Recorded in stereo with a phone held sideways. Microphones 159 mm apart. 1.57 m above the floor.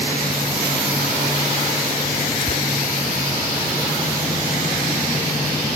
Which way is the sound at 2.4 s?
50° left (ahead or behind).